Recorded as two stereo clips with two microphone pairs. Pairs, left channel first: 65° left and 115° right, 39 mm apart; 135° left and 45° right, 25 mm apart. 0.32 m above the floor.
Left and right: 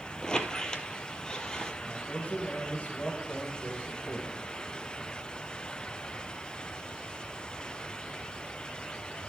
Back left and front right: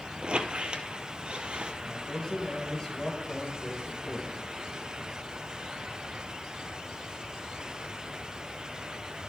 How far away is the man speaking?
About 1.7 m.